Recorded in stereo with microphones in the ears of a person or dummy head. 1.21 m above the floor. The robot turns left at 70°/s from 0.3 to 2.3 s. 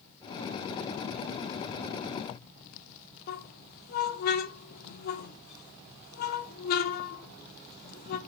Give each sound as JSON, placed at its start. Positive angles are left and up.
{"t": 3.3, "sound": "a squeak", "side_deg": 55, "distance_m": 0.8}